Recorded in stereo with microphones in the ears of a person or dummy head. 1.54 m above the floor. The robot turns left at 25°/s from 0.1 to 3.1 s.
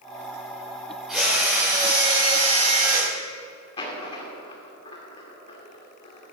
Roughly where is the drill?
Ahead.